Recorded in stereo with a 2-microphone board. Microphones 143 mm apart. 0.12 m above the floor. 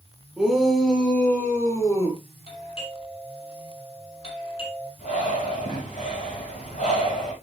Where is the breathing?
65° left (ahead or behind), 6.5 m.